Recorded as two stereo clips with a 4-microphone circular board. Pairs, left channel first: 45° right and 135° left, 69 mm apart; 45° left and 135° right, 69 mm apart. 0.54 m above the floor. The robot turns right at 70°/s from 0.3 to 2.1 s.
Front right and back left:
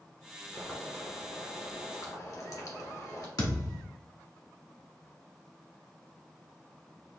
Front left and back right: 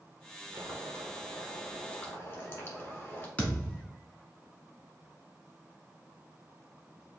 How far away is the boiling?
About 1.2 m.